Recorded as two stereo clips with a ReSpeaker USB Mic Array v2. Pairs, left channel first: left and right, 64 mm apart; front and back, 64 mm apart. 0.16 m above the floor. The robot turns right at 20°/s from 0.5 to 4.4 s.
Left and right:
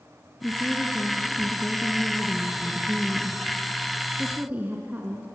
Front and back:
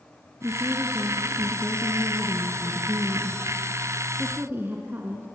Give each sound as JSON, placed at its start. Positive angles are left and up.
{"t": 0.4, "sound": "a woman speaking", "azimuth_deg": 140, "distance_m": 2.0}